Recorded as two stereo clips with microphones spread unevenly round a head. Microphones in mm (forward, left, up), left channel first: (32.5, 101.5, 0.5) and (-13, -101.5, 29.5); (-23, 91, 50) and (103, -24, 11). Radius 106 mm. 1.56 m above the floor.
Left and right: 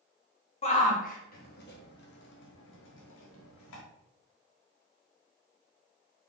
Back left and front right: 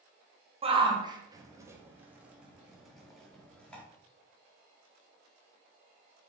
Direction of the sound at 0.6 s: 15° left.